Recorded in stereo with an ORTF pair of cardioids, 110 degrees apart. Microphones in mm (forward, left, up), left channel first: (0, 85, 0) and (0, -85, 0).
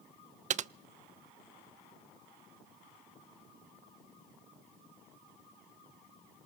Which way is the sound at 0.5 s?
50° right.